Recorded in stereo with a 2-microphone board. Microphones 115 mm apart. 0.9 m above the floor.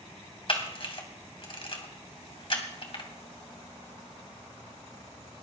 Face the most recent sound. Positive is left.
turn(degrees=50)  # may be behind; listen again after turning